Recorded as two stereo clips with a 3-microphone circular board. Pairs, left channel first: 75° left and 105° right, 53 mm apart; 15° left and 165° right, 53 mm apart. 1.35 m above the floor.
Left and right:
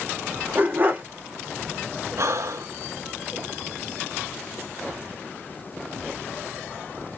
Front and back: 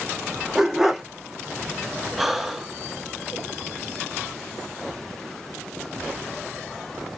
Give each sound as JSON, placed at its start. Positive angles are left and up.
{"t": 0.6, "sound": "a dog barking", "azimuth_deg": -85, "distance_m": 0.9}
{"t": 2.2, "sound": "breathing", "azimuth_deg": -80, "distance_m": 0.5}